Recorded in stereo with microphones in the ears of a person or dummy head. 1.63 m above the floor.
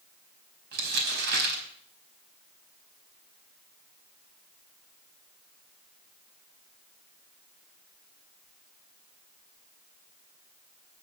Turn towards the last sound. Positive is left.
turn(degrees=-55)  # may be behind; listen again after turning